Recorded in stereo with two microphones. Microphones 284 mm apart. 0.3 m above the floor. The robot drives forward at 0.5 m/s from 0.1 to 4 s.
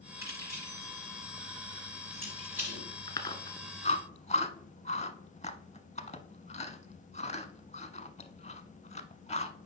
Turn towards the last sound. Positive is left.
turn(degrees=25)  # may be behind; listen again after turning